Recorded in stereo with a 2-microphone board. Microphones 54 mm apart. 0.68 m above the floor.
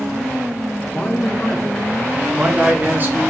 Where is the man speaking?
25° left (ahead or behind), 1.5 m; by 3.2 s 40° right (ahead or behind), 1.1 m.